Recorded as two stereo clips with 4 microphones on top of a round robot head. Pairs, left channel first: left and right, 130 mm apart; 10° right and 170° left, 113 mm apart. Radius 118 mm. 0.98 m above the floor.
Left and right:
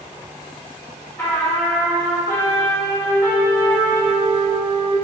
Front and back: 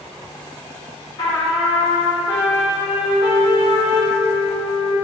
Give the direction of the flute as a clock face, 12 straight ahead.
11 o'clock.